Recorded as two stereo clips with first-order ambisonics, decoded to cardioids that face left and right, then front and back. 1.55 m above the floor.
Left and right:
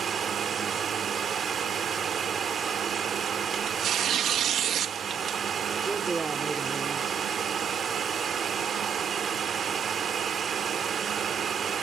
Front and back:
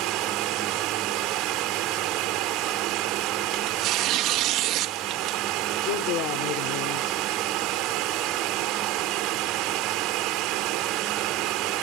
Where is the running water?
155° right.